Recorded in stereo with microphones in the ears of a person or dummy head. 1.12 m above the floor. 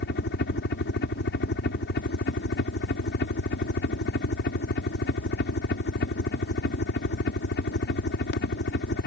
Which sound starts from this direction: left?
A helicopter, at 0.0 s.